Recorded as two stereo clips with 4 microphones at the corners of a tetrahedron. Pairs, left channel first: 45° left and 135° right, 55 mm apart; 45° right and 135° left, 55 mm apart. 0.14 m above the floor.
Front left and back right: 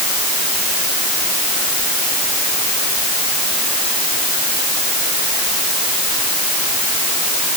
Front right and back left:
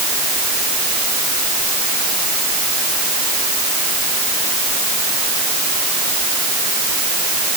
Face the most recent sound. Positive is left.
No sound to turn to.